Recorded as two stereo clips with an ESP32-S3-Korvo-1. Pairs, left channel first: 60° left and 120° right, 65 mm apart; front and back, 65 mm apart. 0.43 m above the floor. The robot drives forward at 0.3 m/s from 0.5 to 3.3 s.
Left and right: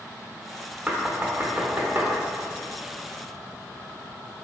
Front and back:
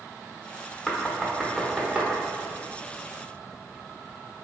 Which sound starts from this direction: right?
Knocking, at 0.9 s.